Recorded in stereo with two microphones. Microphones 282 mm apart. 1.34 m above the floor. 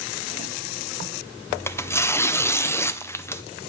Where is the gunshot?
I don't hear a gunshot.